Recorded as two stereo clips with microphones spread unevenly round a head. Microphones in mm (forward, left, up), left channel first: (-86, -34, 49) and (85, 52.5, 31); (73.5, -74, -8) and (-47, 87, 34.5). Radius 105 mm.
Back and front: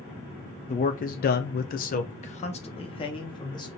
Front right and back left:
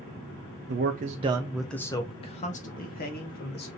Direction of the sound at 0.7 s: 155° left.